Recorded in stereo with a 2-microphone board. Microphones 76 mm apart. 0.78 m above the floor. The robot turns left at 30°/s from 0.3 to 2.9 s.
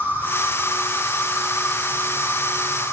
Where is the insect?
150° right, 4 m; by 2.9 s 130° left, 4 m.